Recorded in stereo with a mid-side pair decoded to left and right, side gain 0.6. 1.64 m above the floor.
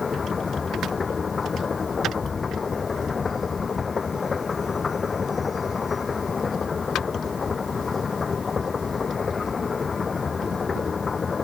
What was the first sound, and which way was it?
A machine running, 25° left.